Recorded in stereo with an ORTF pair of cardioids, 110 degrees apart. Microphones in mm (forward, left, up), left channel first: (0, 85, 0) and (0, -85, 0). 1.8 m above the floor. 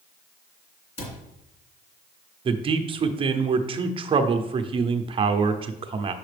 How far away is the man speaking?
About 0.8 m.